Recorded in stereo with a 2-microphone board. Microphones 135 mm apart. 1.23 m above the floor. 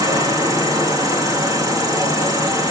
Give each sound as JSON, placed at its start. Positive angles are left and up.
{"t": 0.0, "sound": "an insect", "side_deg": -25, "distance_m": 4.0}